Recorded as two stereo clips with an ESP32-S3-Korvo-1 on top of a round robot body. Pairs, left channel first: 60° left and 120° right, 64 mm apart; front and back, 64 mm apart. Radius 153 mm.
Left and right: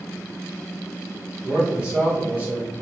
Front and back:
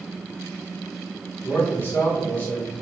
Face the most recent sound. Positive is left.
turn(degrees=-65)